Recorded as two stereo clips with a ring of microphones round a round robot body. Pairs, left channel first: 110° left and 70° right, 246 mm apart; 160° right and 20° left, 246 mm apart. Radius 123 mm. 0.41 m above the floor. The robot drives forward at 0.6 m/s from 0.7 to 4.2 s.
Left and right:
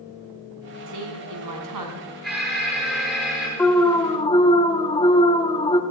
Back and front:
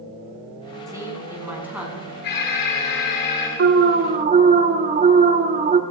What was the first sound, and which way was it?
A woman speaking, 55° right.